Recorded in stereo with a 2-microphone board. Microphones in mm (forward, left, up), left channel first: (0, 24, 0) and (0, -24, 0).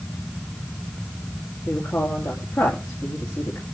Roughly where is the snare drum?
I don't hear a snare drum.